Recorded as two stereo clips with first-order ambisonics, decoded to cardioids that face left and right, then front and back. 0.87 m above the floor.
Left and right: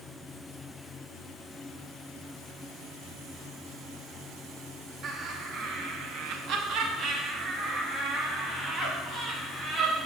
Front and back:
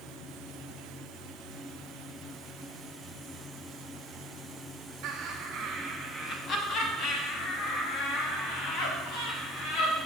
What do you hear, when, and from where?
5.0 s laughter: 135° right, 1.4 m; by 9.9 s 10° right, 4.5 m